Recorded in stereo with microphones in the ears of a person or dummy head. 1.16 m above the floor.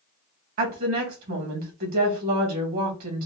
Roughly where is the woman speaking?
Right.